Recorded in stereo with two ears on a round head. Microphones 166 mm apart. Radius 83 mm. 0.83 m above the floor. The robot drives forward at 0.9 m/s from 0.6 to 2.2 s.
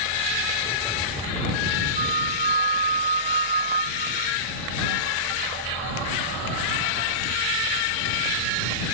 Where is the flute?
35° right (ahead or behind).